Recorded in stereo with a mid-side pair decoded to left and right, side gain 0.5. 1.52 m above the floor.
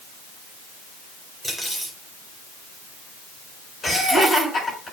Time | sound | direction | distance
1.4 | cutlery clinking | 5° left | 4.5 m
3.8 | laughter | 25° left | 6 m